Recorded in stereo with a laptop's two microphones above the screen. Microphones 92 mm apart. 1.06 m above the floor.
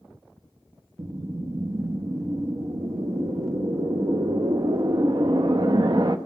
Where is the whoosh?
50° right (ahead or behind), 0.5 m.